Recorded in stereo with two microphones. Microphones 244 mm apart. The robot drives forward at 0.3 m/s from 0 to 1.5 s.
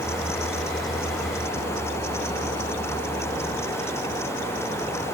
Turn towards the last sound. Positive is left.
No sound to turn to.